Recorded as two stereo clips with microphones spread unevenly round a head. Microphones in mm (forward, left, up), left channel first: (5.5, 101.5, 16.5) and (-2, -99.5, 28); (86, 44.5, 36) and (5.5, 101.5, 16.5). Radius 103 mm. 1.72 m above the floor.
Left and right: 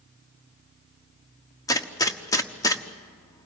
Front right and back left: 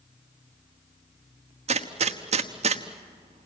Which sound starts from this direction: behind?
A gunshot, at 1.7 s.